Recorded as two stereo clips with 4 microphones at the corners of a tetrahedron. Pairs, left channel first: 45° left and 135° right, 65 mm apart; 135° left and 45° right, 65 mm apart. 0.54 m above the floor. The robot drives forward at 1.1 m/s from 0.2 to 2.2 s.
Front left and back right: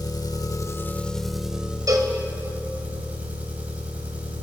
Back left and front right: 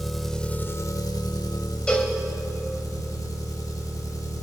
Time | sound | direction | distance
0.0 | an engine running | 45° left | 0.9 m
1.9 | a cowbell | 150° right | 1.8 m